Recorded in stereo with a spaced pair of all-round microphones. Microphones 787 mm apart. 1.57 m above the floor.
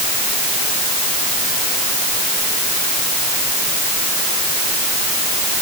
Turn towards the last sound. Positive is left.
No sound to turn to.